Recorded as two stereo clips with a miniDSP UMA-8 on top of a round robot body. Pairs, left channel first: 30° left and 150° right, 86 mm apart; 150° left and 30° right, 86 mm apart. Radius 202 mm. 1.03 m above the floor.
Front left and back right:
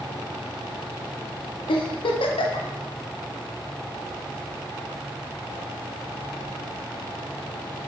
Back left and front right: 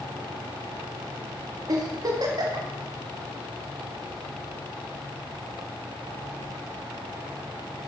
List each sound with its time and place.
1.7 s a giggle: 15° left, 0.8 m